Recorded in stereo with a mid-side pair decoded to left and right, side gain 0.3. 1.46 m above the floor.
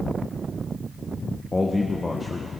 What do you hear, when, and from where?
1.5 s a man speaking: 30° left, 1.6 m